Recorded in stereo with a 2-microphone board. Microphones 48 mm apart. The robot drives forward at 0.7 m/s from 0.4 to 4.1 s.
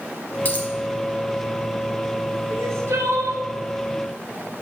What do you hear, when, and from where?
0.5 s a dropped coin: 35° left (ahead or behind), 1.2 m; by 0.7 s 40° left (ahead or behind), 1.1 m
2.5 s crying: 65° right (ahead or behind), 1.0 m; by 3.4 s 70° right (ahead or behind), 0.9 m